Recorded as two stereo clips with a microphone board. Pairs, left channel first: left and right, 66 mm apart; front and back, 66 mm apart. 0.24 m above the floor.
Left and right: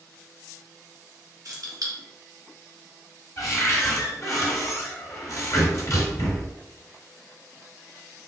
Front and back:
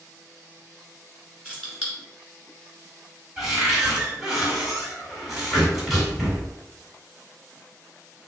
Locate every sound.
1.4 s keys jangling: 115° right, 1.8 m
3.4 s a cupboard door: 100° left, 1.7 m